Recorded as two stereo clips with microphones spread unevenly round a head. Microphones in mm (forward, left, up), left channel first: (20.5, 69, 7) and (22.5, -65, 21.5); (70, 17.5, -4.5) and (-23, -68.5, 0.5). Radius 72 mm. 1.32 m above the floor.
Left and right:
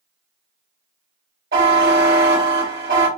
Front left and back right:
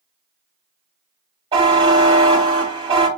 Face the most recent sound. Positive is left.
turn(degrees=-90)